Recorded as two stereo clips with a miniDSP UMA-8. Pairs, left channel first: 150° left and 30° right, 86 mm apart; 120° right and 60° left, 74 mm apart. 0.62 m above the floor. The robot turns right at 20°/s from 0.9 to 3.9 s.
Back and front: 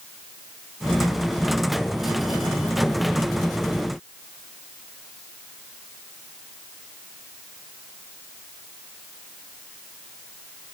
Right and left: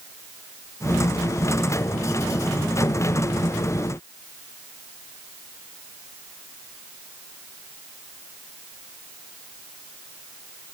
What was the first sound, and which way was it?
Only background noise.